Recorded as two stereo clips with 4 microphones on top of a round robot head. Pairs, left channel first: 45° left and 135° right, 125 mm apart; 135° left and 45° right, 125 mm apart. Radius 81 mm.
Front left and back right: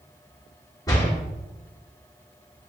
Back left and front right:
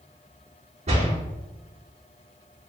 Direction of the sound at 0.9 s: 15° right.